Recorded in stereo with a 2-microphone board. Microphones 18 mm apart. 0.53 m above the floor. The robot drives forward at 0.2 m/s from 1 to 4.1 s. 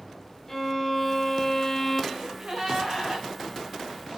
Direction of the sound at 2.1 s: 40° right (ahead or behind).